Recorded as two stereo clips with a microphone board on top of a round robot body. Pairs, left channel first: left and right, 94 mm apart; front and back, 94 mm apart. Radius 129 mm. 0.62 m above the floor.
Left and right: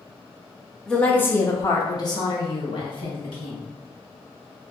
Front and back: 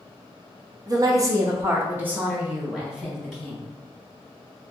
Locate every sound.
0.9 s a woman speaking: 170° left, 1.0 m; by 3.7 s 90° left, 2 m